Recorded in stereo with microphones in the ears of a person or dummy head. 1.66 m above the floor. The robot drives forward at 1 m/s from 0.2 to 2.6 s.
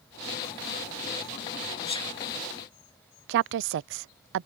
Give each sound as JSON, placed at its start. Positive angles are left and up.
{"t": 1.9, "sound": "a sneeze", "side_deg": 30}
{"t": 3.3, "sound": "a woman speaking", "side_deg": -65}